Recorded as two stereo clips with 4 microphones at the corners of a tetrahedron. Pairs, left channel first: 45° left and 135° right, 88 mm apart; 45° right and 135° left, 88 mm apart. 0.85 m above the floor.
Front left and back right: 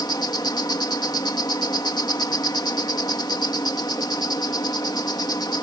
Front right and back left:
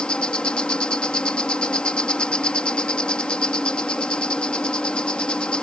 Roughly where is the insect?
Ahead left.